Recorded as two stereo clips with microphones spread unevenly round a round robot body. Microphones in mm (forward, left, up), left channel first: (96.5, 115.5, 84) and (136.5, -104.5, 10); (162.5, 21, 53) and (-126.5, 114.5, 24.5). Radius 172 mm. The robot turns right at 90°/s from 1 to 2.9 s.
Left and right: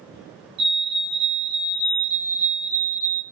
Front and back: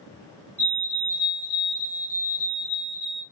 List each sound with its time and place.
0.6 s a fire alarm: 105° right, 3.5 m; by 3.2 s 65° left, 3.5 m